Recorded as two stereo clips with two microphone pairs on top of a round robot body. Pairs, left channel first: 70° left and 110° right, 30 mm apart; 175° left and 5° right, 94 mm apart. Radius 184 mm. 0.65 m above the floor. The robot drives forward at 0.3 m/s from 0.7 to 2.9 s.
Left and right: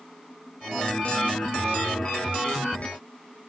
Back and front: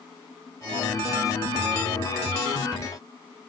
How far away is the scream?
No scream in this recording.